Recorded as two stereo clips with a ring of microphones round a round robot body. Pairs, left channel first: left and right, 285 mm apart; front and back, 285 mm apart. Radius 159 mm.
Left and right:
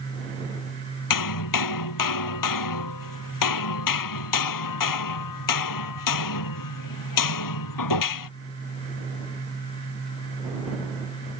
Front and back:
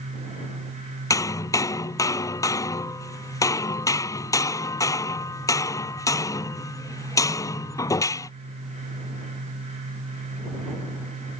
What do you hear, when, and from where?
1.1 s hammering: 80° left